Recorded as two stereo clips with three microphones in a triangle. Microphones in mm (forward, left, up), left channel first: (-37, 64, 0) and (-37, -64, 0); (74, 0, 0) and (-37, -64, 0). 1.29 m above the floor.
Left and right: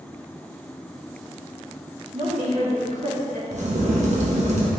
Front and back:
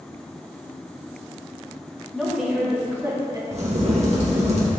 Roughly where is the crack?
Behind right.